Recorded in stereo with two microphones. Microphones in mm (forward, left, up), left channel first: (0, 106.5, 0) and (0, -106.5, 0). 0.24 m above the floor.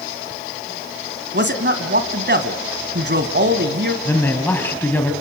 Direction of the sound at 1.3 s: 50° right (ahead or behind).